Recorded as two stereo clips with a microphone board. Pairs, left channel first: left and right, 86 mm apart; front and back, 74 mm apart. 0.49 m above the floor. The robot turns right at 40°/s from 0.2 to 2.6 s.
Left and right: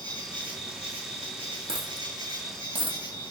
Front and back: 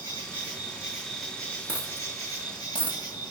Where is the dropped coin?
110° right, 1.9 m; by 3.0 s 70° right, 1.9 m.